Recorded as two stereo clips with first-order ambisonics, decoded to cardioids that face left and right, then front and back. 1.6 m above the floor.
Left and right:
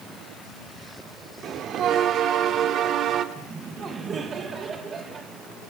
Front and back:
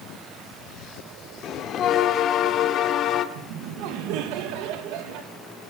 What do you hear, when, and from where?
1.4 s a bell: 45° right, 1.8 m
3.4 s laughter: 155° right, 2.5 m